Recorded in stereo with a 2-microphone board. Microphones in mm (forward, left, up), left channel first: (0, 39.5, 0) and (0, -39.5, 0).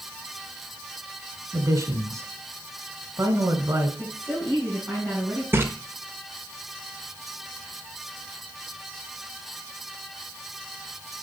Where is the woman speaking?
30° right (ahead or behind), 4.5 m.